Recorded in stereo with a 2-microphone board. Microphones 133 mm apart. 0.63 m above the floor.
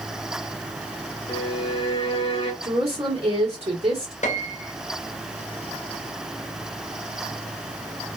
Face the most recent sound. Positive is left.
turn(degrees=65)  # may be behind; listen again after turning